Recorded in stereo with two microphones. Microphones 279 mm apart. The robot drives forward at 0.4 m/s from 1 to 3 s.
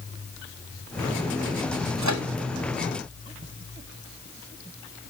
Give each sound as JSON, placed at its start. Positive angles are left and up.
{"t": 2.0, "sound": "a microwave", "side_deg": -75, "distance_m": 1.4}